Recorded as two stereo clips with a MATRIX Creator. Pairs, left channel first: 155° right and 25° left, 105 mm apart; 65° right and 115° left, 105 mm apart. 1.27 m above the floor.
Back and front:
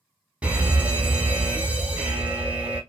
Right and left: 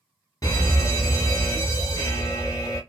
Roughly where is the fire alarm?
Ahead right.